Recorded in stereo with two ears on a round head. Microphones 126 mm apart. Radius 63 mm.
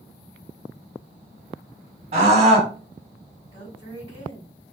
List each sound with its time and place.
2.1 s a scream: 50° right (ahead or behind), 1.9 m
3.5 s a woman speaking: 45° right (ahead or behind), 2.0 m